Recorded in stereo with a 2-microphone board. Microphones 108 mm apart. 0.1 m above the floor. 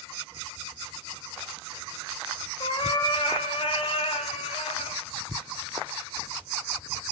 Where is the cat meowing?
50° left (ahead or behind), 4.5 m; by 5.0 s 70° left (ahead or behind), 4.5 m.